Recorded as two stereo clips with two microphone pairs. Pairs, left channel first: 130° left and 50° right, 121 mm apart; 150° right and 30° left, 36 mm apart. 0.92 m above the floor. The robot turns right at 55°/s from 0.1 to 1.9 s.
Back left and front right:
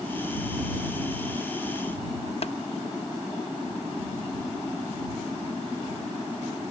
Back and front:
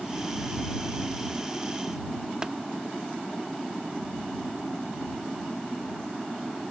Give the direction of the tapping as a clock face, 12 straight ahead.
9 o'clock.